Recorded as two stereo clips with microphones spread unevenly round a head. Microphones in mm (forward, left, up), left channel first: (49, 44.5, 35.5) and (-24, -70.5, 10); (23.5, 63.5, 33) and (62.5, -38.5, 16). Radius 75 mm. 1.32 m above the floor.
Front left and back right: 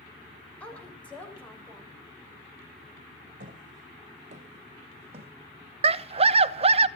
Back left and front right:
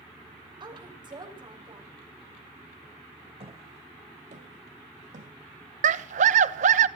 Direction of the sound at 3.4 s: 110° right.